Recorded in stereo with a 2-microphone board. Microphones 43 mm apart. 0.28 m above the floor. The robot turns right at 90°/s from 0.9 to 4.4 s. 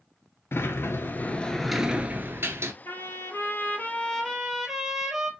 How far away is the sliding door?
About 0.6 m.